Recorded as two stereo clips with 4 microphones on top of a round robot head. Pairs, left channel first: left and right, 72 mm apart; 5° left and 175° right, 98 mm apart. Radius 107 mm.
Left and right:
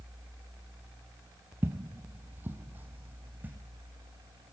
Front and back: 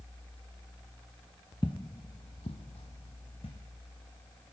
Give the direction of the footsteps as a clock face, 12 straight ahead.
2 o'clock.